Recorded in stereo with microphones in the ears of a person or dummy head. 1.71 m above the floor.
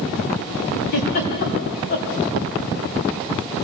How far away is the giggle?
About 3 m.